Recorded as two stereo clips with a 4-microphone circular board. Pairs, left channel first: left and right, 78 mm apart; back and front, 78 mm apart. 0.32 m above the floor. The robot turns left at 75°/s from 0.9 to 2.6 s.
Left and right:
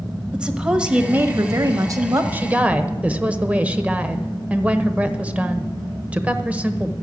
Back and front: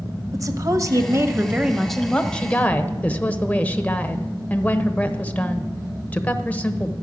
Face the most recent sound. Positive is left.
turn(degrees=-135)